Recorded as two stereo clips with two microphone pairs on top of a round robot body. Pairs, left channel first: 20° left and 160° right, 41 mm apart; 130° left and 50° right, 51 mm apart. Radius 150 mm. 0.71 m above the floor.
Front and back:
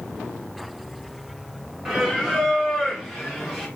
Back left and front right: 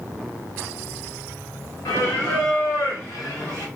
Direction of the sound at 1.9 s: 125° left.